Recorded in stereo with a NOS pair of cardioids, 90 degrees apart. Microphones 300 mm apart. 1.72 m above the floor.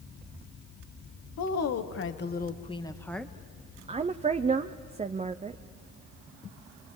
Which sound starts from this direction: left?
A woman speaking, at 1.4 s.